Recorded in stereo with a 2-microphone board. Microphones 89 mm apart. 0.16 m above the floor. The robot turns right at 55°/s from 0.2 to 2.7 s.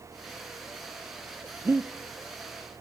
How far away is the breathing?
About 0.7 m.